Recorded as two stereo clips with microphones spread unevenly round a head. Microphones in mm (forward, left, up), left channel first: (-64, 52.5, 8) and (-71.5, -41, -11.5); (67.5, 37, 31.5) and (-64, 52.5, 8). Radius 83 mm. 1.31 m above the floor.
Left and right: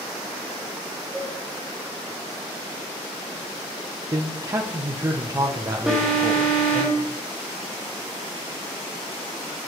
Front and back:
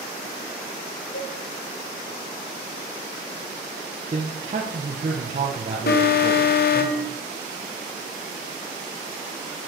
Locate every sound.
1.1 s a cowbell: 5° right, 2.5 m
4.1 s a man speaking: 145° right, 1.1 m
5.9 s an alarm: 10° right, 1.6 m